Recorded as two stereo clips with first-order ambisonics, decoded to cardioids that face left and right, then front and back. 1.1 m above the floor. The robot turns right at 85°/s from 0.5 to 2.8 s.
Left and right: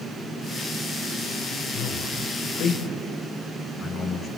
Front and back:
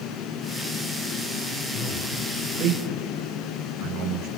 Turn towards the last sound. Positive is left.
turn(degrees=150)